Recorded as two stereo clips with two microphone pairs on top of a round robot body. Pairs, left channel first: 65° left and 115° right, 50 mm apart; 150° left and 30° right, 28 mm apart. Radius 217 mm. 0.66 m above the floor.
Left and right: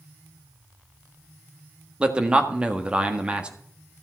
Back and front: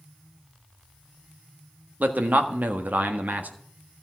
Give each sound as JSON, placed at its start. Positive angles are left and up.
{"t": 2.0, "sound": "a man speaking", "azimuth_deg": -45, "distance_m": 1.7}